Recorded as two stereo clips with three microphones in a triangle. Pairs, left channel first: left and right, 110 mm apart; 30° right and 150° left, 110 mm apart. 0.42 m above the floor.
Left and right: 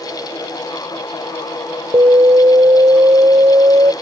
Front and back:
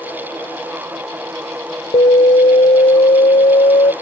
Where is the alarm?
40° right.